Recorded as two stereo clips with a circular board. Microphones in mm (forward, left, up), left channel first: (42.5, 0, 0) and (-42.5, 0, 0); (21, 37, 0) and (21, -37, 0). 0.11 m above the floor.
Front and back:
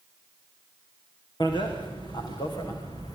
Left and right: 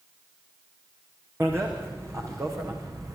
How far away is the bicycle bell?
About 5.5 m.